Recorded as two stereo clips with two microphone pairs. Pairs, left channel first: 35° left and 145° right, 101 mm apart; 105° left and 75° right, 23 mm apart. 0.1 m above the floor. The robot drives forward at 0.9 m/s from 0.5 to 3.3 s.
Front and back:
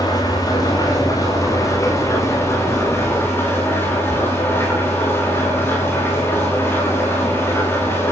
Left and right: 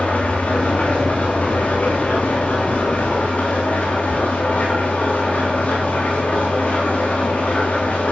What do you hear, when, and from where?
0.0 s an engine running: 85° left, 9.5 m; by 8.1 s 100° left, 9.5 m